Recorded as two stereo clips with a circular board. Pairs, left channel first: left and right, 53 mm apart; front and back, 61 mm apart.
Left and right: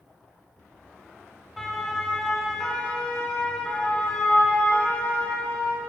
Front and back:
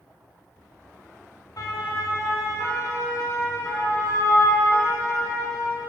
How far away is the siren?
About 4 m.